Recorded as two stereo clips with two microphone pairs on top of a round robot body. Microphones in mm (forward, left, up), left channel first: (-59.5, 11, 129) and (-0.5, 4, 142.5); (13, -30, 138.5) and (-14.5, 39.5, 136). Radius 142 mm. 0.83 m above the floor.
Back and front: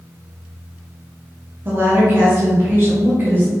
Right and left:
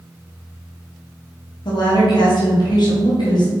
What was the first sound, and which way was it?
A woman speaking, 65° right.